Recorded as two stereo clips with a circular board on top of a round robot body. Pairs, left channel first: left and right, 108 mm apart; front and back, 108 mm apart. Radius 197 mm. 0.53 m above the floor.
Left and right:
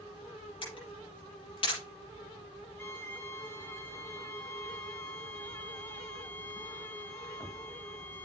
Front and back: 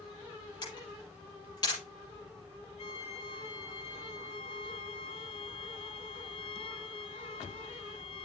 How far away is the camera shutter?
About 8 m.